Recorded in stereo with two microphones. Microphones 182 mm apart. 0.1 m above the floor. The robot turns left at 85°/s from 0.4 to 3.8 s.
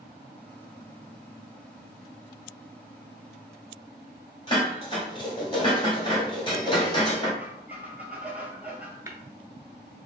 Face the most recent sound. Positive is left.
turn(degrees=-20)  # may be behind; listen again after turning